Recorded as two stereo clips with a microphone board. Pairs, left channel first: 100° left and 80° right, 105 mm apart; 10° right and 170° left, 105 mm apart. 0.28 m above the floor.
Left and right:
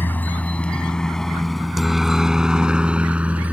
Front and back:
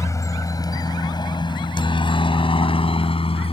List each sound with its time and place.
0.0 s a helicopter: 35° left; by 3.5 s 5° right